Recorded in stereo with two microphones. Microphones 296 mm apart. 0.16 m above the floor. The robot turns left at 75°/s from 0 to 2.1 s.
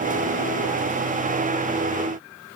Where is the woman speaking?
No woman speaking in this recording.